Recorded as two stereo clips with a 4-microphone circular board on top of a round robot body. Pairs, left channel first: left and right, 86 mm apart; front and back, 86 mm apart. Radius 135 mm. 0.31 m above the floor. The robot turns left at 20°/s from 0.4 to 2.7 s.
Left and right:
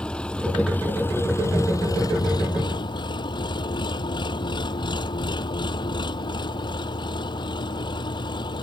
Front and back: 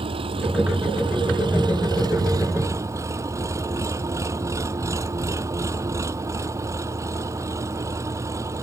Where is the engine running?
170° left; by 8.6 s 125° left.